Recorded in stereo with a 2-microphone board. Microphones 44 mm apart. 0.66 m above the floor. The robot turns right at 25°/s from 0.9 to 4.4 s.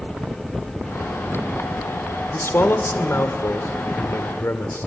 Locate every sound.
2.3 s a man speaking: 60° left, 1.8 m; by 4.9 s 115° left, 1.8 m